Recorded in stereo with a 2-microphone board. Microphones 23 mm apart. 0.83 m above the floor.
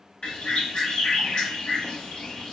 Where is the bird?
50° left (ahead or behind), 0.9 m.